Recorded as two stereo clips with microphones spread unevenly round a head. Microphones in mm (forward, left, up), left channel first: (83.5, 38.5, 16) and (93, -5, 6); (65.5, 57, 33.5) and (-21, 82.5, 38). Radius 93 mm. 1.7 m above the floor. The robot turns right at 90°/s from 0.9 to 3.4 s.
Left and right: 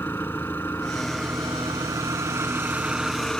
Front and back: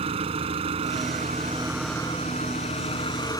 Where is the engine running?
170° left; by 3.4 s 35° left.